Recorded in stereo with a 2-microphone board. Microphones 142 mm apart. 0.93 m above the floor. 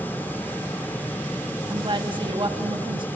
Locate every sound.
1.7 s a woman speaking: 35° right (ahead or behind), 1.6 m